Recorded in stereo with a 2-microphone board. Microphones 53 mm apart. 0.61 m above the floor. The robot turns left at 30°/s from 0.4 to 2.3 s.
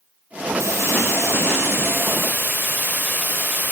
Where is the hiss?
85° right, 3 m; by 3.7 s 135° right, 3 m.